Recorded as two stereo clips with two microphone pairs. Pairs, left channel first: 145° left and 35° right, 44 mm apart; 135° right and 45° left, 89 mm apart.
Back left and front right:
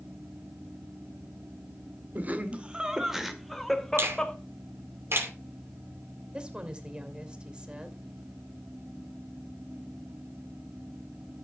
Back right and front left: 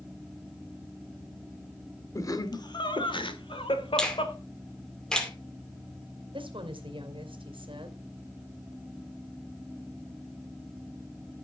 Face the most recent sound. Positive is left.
turn(degrees=30)